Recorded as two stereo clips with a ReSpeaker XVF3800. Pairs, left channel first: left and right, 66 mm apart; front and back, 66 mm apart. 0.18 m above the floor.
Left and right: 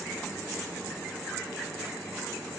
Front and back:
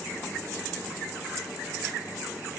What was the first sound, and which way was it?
Only background noise.